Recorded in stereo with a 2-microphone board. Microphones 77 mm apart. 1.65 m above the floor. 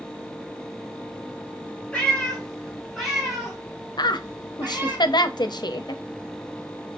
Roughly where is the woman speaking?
Left.